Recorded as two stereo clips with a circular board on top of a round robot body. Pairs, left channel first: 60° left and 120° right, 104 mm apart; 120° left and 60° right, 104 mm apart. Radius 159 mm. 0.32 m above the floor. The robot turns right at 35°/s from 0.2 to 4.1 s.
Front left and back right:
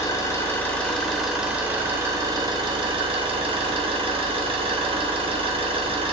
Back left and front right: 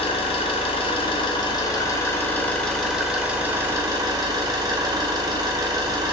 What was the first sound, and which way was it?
An engine running, 115° left.